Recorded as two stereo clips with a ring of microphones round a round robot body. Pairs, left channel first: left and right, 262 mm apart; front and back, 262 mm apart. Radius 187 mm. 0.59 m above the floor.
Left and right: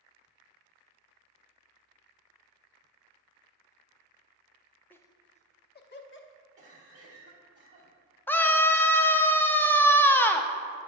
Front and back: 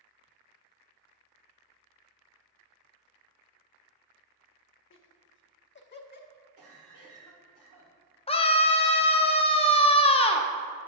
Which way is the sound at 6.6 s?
145° right.